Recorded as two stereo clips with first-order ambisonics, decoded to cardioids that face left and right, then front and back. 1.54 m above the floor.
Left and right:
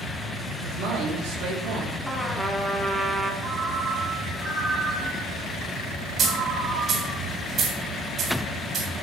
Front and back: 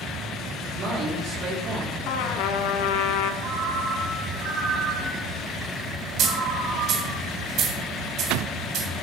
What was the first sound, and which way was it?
A man speaking, 125° right.